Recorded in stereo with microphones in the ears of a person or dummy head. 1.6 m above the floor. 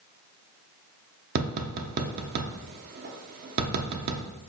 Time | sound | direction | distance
1.4 | tapping | 50° right (ahead or behind) | 0.5 m